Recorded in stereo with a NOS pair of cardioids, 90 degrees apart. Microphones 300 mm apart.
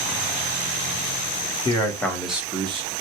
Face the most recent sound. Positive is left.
turn(degrees=-20)